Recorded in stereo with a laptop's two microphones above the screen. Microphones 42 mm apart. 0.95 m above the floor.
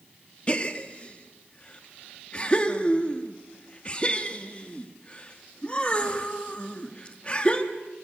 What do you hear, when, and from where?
0.5 s a gasp: 25° left (ahead or behind), 1.5 m